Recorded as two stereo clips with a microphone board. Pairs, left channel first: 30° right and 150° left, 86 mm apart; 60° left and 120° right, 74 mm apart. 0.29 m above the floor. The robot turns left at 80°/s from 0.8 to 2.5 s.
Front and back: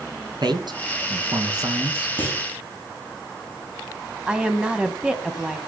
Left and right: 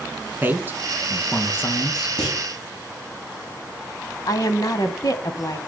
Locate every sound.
0.4 s a man speaking: 175° left, 2.5 m; by 2.1 s 75° left, 2.5 m
2.2 s a clunk: 40° left, 5.5 m; by 2.4 s 20° left, 5.5 m
4.3 s a woman speaking: 75° left, 2 m